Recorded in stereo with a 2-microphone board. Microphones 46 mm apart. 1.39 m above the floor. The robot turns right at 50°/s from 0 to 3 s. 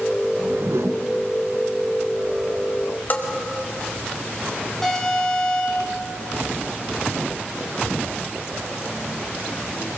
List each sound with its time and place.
0.3 s a whoosh: 110° right, 1.1 m; by 1.1 s 75° right, 1.1 m
3.1 s a bell: 40° left (ahead or behind), 2.5 m
4.8 s an alarm: 5° left (ahead or behind), 8 m